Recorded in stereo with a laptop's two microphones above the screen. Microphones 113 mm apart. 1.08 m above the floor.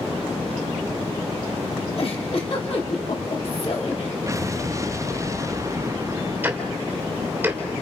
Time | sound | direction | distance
2.0 | a giggle | 60° left (ahead or behind) | 3 m
4.3 | an explosion | 30° right (ahead or behind) | 0.6 m
6.4 | ticking | 15° right (ahead or behind) | 3 m